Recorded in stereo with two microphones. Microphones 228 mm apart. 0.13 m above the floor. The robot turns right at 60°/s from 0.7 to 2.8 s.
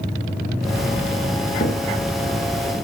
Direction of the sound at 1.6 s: 45° left (ahead or behind).